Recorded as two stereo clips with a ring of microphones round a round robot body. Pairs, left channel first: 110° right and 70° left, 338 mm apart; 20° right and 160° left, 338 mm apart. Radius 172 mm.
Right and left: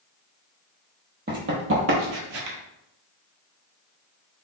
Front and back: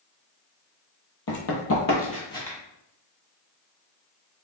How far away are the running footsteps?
About 1.1 m.